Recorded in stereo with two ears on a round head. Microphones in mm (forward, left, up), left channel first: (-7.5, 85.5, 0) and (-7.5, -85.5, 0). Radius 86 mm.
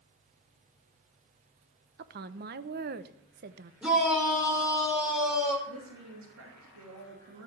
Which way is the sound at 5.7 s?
70° right (ahead or behind).